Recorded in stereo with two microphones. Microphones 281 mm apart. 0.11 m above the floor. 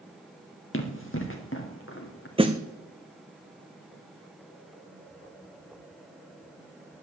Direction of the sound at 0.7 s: 45° left (ahead or behind).